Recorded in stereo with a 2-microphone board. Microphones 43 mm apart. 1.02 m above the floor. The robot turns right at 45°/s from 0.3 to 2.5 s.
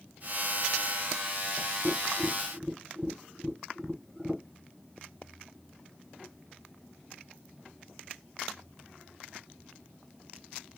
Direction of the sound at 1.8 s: 35° right (ahead or behind).